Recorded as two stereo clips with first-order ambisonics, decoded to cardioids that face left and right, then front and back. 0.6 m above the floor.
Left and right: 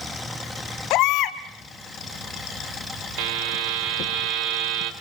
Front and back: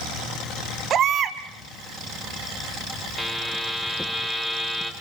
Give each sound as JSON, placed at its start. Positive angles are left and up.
{"t": 0.9, "sound": "a baby crying", "azimuth_deg": 125, "distance_m": 1.5}
{"t": 3.2, "sound": "a buzzer", "azimuth_deg": -95, "distance_m": 2.5}